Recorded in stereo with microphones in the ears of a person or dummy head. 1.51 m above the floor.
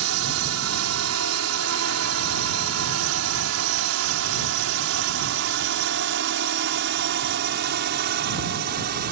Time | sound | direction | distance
0.0 | a drone | 75° right (ahead or behind) | ?